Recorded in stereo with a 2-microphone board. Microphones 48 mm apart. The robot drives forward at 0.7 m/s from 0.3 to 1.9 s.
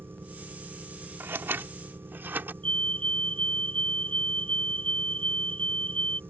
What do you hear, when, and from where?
0.0 s an engine running: 50° right (ahead or behind)
1.2 s scissors: 60° right (ahead or behind); by 2.5 s 50° right (ahead or behind)
2.6 s a fire alarm: 30° left (ahead or behind)